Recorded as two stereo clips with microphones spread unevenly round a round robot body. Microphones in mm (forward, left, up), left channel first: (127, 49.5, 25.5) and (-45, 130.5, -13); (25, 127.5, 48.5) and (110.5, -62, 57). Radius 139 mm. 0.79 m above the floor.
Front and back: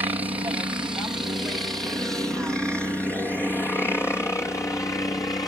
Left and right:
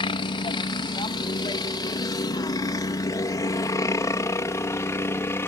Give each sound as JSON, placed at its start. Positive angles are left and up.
{"t": 0.0, "sound": "a helicopter", "azimuth_deg": 120}